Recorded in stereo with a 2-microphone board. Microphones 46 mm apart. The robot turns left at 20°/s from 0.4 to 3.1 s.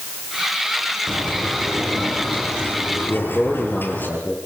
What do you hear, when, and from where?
1.1 s a bird: 170° left, 7 m; by 4.1 s 130° left, 7 m
3.1 s a man speaking: 25° left (ahead or behind), 5.5 m